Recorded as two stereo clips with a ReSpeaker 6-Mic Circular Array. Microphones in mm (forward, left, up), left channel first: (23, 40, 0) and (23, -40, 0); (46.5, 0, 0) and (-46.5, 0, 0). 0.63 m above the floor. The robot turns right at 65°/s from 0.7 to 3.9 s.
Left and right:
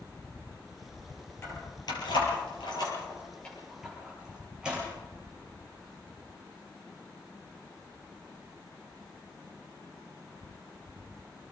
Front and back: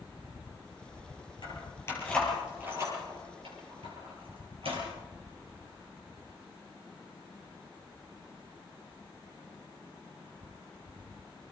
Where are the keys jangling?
30° left, 9.5 m; by 4.8 s 170° right, 9.5 m.